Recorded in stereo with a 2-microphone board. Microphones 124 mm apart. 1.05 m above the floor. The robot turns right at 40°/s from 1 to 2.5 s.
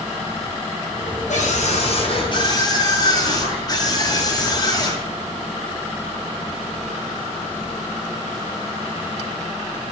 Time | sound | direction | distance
1.3 | a scream | 100° left | 7.5 m